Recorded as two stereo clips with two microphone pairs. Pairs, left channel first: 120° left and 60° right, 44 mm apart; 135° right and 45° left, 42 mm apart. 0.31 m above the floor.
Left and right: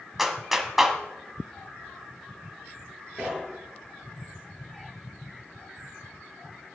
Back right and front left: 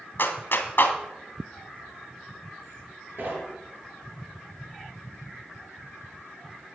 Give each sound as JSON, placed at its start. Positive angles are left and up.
{"t": 0.2, "sound": "a clap", "azimuth_deg": -145, "distance_m": 1.5}
{"t": 3.2, "sound": "knocking", "azimuth_deg": 15, "distance_m": 3.5}